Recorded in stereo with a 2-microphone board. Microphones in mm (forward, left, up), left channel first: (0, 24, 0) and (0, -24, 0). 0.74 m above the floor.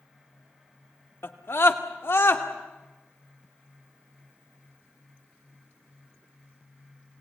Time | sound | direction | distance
1.2 | a scream | 55° left (ahead or behind) | 1.8 m